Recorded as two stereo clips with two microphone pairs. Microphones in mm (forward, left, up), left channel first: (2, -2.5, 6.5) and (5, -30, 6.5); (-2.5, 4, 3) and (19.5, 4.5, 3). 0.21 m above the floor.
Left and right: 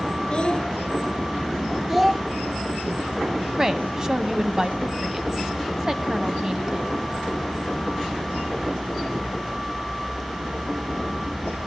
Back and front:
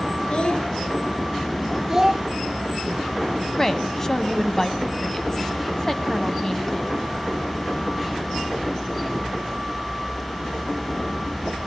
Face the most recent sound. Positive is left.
turn(degrees=-130)